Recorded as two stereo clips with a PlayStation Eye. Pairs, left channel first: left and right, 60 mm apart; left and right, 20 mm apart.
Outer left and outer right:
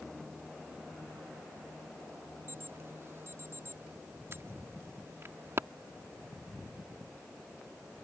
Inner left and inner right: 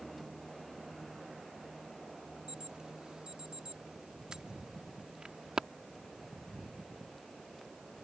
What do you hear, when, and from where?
2.5 s an alarm: 45° right (ahead or behind)